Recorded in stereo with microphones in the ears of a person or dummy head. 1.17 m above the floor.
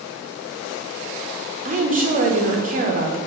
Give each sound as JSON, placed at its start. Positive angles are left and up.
{"t": 1.6, "sound": "a woman speaking", "side_deg": -35, "distance_m": 0.6}